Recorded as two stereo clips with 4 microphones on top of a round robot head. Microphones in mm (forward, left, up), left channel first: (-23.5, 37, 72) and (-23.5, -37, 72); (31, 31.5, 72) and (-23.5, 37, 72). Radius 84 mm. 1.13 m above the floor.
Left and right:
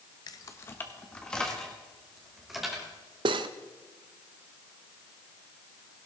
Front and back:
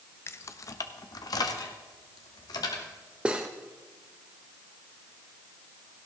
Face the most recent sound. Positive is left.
turn(degrees=-105)